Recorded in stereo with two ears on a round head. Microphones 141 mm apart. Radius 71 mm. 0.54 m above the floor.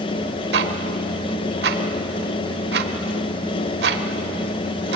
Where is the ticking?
70° right (ahead or behind), 1.4 m.